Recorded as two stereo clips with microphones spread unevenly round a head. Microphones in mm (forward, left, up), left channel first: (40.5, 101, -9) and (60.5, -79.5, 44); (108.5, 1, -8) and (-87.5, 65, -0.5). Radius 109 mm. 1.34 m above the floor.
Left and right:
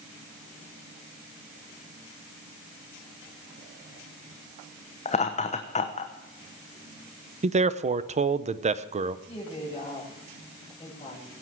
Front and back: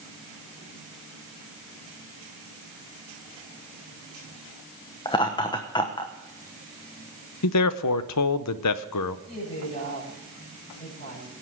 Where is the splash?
I don't hear a splash.